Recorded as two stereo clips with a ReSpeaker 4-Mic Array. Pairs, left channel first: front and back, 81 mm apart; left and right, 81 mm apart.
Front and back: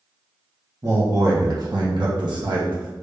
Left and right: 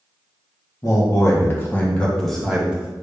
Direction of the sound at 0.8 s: 130° left.